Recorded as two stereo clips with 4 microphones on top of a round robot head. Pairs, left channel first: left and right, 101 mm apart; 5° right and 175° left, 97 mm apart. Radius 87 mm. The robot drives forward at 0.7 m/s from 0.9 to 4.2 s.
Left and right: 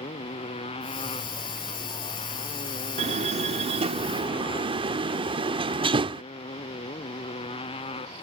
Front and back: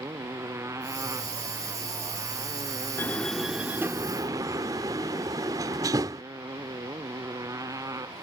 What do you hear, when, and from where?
0.0 s a motorcycle: 115° left; by 8.2 s 120° left
3.0 s a door slam: 75° right; by 6.2 s 125° right